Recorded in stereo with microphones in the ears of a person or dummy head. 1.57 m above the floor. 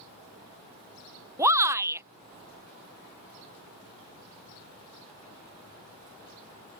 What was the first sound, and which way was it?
A shout, 15° right (ahead or behind).